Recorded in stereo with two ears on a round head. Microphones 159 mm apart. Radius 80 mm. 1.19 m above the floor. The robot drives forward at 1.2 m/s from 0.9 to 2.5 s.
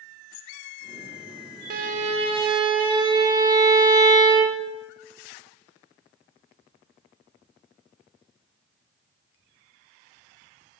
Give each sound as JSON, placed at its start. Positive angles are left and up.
{"t": 1.7, "sound": "a violin", "side_deg": -60, "distance_m": 0.7}